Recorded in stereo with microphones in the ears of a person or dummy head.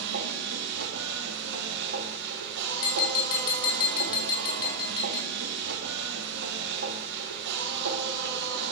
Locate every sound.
0.0 s a machine running: 65° right (ahead or behind), 2.5 m
2.8 s tapping: 30° left (ahead or behind), 4.5 m